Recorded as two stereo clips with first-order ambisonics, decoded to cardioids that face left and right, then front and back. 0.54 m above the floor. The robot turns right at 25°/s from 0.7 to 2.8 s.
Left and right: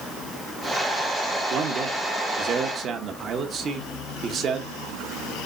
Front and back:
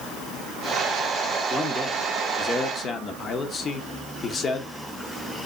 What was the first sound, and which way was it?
A man speaking, 80° right.